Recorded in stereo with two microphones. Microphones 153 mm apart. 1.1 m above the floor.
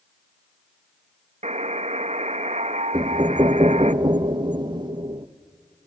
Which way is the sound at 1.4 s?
50° right (ahead or behind).